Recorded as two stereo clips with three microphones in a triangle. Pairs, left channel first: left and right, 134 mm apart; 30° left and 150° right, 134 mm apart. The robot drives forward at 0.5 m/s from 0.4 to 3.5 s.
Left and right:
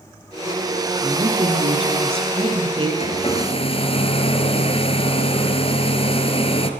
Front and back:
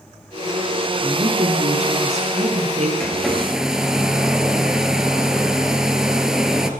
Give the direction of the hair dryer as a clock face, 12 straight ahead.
8 o'clock.